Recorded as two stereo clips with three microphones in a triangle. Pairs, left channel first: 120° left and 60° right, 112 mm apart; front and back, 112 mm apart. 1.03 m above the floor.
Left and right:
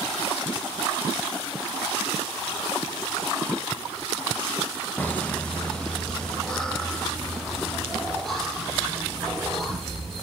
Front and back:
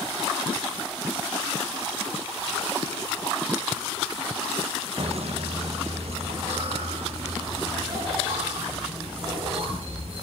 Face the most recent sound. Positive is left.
turn(degrees=-150)